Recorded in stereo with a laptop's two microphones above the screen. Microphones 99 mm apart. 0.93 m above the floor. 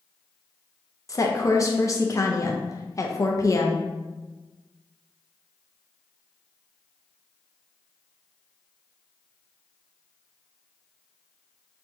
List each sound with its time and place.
1.1 s a woman speaking: 35° left (ahead or behind), 0.5 m